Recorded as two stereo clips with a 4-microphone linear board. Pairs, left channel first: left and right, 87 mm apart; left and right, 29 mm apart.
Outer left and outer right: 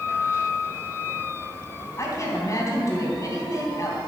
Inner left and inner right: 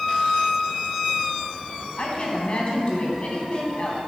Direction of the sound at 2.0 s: 35° left (ahead or behind).